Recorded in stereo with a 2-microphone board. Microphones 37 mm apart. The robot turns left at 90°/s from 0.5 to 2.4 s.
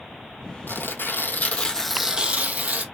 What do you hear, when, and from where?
0.7 s tearing paper: 115° left, 1.4 m; by 2.8 s 40° right, 1.4 m